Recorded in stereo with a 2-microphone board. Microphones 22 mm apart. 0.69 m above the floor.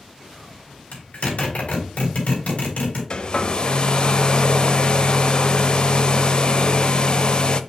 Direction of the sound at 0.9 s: 75° left (ahead or behind).